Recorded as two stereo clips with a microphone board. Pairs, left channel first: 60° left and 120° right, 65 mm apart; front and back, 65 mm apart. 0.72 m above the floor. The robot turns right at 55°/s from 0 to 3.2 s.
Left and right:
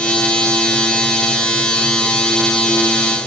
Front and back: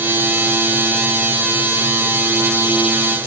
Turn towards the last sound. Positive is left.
No sound to turn to.